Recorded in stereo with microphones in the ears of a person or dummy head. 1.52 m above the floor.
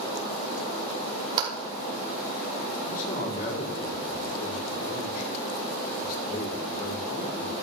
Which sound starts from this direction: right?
A clap, at 1.4 s.